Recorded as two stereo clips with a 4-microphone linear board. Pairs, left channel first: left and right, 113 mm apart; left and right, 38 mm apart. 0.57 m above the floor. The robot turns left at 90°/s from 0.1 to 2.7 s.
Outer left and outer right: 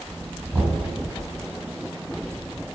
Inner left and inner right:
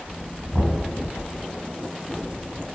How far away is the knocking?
About 3.5 m.